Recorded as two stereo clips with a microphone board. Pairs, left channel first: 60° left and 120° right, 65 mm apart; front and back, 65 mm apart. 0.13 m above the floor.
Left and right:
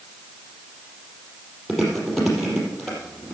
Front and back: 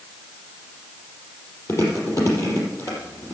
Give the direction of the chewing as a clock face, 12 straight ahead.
1 o'clock.